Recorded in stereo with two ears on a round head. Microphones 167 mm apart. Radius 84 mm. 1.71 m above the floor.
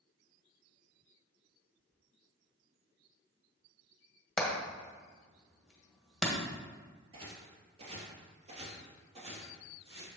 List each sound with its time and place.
4.4 s hammering: centre (ahead or behind), 1.7 m
7.1 s footsteps: 30° right (ahead or behind), 2.0 m